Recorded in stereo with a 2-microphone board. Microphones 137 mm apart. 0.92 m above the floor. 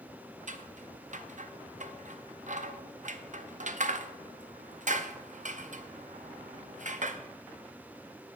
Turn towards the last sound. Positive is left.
turn(degrees=-65)  # may be behind; listen again after turning